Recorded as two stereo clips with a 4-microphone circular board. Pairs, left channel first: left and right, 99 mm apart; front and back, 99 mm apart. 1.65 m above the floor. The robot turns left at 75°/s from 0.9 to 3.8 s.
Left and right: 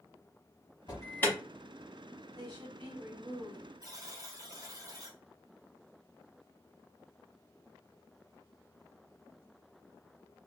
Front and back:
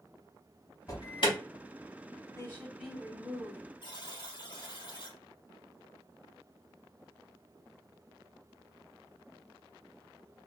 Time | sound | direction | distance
0.9 | an alarm | 45° left | 1.0 m
2.4 | a woman speaking | 55° right | 1.4 m
3.8 | a buzzer | 35° right | 0.8 m